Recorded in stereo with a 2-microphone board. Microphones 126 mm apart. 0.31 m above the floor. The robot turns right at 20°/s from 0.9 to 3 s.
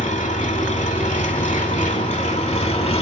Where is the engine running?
85° left, 0.7 m; by 3.0 s 125° left, 0.7 m.